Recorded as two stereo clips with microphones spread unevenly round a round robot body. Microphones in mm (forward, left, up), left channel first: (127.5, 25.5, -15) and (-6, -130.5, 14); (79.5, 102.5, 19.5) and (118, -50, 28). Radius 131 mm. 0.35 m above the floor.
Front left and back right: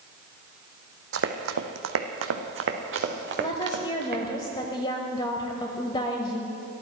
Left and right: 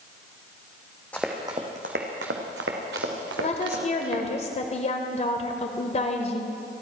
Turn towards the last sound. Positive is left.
turn(degrees=105)